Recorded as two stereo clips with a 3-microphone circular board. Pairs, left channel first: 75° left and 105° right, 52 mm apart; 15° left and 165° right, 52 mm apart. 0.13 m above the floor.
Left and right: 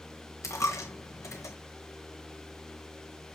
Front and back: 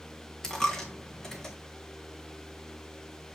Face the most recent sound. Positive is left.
turn(degrees=95)